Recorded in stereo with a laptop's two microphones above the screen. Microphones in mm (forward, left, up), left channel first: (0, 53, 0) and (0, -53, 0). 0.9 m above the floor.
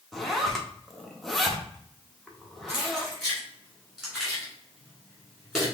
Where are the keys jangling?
5° right (ahead or behind), 2 m.